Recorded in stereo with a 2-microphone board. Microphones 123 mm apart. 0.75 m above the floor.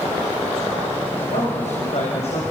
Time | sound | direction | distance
1.2 | a man speaking | 75° left (ahead or behind) | 5 m